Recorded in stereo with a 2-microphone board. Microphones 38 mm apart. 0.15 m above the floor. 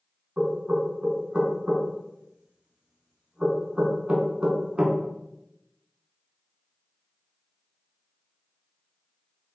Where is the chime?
I don't hear a chime.